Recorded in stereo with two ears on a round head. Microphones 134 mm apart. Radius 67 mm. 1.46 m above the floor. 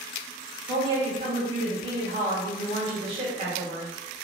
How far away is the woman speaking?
About 1.1 m.